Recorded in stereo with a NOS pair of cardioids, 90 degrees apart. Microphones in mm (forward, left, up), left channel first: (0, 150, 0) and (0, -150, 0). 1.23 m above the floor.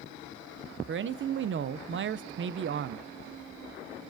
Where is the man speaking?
40° right, 0.5 m.